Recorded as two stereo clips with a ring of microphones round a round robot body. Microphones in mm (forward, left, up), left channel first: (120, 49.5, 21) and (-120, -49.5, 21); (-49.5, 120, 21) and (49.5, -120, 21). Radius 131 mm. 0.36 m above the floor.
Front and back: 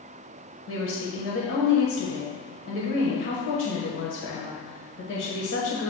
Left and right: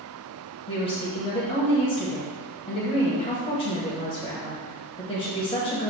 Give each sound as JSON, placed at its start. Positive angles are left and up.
{"t": 0.7, "sound": "a woman speaking", "azimuth_deg": 45, "distance_m": 1.4}